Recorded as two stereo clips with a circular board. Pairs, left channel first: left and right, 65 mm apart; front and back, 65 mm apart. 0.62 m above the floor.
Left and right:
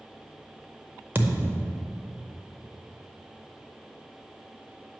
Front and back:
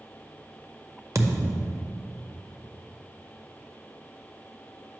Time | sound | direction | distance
1.1 | a thud | 145° right | 0.6 m